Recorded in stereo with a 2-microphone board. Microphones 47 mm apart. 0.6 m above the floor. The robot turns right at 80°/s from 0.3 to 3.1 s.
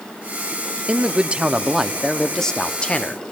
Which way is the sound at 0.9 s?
25° right (ahead or behind).